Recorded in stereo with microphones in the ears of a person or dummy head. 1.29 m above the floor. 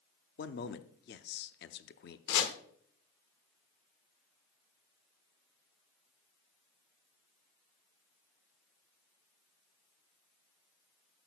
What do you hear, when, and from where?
0.4 s a man speaking: 50° left (ahead or behind), 0.5 m
2.3 s chopping: 65° left (ahead or behind), 1.2 m